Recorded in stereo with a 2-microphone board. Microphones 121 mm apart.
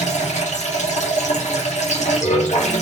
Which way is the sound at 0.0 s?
75° left (ahead or behind).